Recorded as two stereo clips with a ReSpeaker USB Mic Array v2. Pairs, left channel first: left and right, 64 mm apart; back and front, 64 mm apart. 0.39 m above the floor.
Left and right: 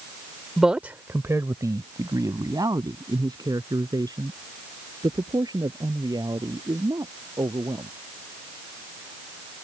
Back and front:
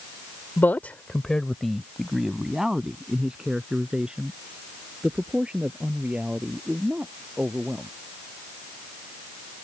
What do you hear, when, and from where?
0.6 s a man speaking: 175° right; by 7.9 s 75° right